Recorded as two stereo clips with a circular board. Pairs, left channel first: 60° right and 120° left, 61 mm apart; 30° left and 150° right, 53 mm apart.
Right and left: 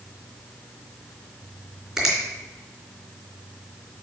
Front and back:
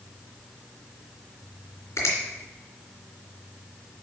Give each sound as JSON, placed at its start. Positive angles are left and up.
{"t": 2.0, "sound": "a finger snap", "azimuth_deg": 40, "distance_m": 3.0}